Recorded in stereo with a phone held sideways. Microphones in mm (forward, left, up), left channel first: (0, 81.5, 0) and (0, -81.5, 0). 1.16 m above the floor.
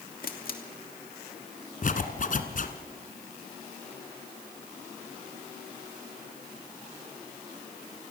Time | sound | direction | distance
0.2 | a camera shutter | 65° left (ahead or behind) | 2.5 m
1.8 | a zipper | 55° left (ahead or behind) | 2 m